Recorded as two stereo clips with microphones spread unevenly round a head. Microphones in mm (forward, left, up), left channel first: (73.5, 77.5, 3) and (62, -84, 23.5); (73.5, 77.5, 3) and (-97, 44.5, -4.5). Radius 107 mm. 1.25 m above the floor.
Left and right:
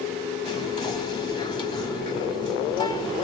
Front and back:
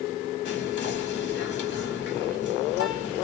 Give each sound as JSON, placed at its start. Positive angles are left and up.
{"t": 0.5, "sound": "whispering", "azimuth_deg": 30, "distance_m": 2.0}